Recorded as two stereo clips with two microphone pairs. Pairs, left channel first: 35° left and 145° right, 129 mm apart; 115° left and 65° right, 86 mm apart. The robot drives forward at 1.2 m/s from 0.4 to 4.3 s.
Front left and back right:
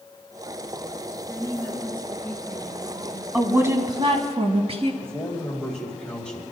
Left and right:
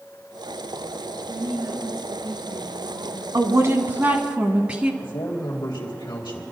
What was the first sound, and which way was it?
A woman speaking, 25° right.